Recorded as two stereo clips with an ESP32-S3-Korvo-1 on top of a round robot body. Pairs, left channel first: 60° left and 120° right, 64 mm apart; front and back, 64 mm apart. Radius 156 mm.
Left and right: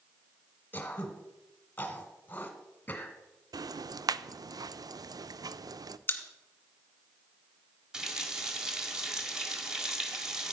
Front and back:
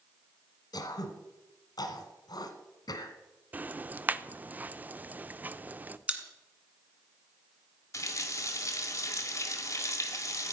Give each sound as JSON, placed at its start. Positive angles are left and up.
{"t": 0.7, "sound": "throat clearing", "azimuth_deg": -5, "distance_m": 1.5}
{"t": 3.5, "sound": "ticking", "azimuth_deg": -115, "distance_m": 0.6}
{"t": 6.1, "sound": "a pop", "azimuth_deg": 115, "distance_m": 1.8}
{"t": 7.9, "sound": "a running tap", "azimuth_deg": -40, "distance_m": 1.7}